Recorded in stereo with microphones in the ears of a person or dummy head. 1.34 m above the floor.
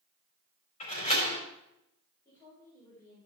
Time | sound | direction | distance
0.8 | a door slam | 40° left (ahead or behind) | 4 m
2.2 | a woman speaking | 20° left (ahead or behind) | 4.5 m